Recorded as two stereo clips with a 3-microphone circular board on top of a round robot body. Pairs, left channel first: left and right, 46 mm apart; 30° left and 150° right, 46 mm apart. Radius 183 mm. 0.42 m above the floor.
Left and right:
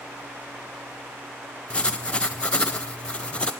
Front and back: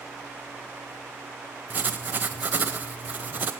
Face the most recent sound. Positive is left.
turn(degrees=155)